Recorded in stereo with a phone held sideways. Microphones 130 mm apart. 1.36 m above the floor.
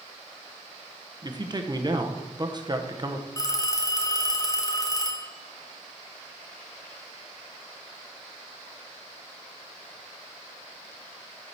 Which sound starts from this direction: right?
A man speaking, at 1.2 s.